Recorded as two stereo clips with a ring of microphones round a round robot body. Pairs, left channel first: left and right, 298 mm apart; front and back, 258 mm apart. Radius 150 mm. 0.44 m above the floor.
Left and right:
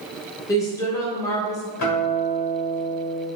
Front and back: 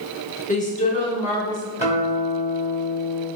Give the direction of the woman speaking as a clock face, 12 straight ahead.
11 o'clock.